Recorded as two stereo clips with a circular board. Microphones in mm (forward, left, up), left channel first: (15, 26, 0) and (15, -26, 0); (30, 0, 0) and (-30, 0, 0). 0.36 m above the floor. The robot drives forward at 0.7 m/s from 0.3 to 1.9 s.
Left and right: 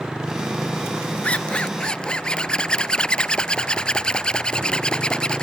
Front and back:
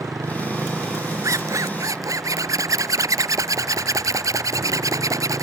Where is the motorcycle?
160° right.